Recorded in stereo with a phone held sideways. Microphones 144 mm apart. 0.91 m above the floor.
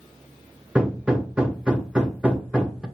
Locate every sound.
0.8 s hammering: 5° right (ahead or behind), 0.9 m